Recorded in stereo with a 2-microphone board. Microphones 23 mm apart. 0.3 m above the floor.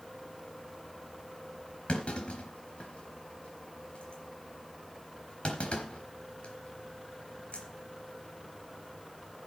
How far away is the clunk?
About 3.5 m.